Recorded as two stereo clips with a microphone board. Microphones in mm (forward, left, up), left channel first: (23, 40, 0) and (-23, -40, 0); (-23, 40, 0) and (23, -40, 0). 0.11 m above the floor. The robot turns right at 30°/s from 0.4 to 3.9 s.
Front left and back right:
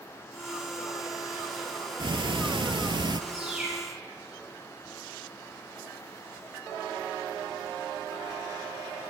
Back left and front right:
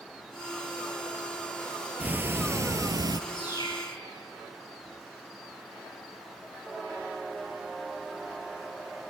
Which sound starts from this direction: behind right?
Ticking, at 2.0 s.